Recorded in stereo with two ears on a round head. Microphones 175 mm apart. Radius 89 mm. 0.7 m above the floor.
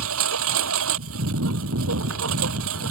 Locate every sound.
0.0 s a lawn mower: 85° right